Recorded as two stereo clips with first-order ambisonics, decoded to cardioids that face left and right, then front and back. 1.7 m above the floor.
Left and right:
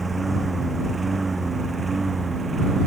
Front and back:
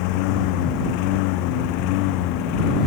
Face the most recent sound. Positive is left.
turn(degrees=-15)